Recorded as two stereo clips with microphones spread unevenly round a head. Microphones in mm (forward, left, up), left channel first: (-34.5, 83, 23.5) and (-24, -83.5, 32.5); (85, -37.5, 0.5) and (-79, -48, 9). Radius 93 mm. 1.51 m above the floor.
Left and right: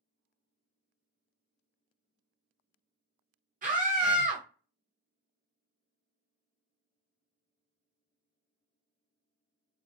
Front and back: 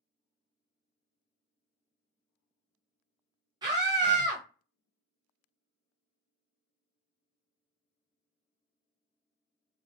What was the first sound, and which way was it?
A scream, 115° right.